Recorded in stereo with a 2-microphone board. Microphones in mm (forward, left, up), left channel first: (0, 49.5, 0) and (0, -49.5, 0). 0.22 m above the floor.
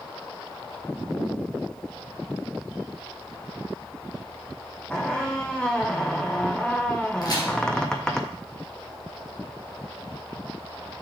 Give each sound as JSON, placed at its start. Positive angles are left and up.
{"t": 4.9, "sound": "a squeak", "side_deg": 10, "distance_m": 1.0}
{"t": 7.2, "sound": "a crack", "side_deg": 45, "distance_m": 2.5}